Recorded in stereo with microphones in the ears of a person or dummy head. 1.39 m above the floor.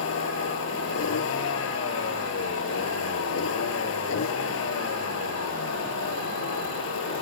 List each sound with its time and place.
0.0 s a vehicle: 65° left (ahead or behind)